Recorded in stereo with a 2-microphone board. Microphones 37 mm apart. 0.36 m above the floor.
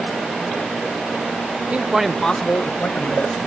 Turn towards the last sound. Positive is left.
turn(degrees=65)  # may be behind; listen again after turning